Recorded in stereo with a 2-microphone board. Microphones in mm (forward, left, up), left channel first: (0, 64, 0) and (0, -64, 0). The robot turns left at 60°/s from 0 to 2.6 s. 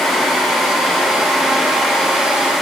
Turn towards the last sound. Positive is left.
No sound to turn to.